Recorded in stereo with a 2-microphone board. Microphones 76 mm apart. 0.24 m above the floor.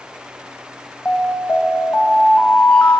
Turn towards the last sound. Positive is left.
turn(degrees=15)  # may be behind; listen again after turning